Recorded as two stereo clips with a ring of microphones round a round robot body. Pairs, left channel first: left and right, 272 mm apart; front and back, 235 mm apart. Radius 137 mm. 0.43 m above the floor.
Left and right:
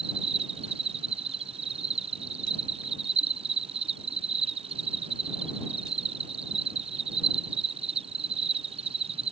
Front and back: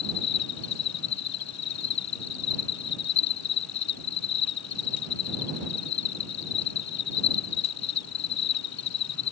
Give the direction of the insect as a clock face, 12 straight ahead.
1 o'clock.